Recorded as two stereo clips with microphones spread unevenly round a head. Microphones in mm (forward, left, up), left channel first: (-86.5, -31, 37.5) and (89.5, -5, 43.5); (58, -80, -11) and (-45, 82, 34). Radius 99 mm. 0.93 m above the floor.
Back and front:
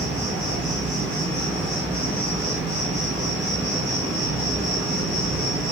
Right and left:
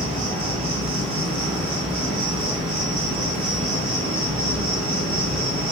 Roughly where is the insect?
Left.